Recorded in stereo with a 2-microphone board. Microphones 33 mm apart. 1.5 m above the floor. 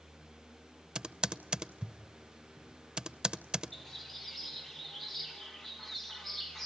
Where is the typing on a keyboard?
25° right (ahead or behind), 0.6 m.